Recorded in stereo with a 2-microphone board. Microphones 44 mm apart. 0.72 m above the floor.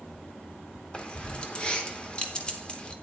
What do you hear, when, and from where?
0.9 s keys jangling: 25° left (ahead or behind), 1.1 m